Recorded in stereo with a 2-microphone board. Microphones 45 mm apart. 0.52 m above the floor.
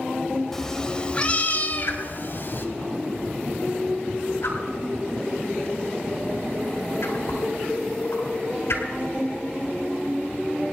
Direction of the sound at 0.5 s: 10° left (ahead or behind).